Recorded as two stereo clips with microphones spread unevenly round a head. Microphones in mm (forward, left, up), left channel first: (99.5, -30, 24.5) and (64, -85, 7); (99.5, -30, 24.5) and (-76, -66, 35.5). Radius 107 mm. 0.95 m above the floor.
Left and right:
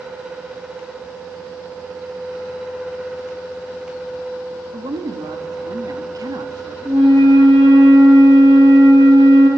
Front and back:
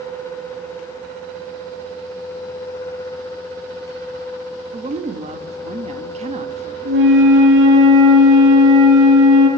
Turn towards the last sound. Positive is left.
turn(degrees=-155)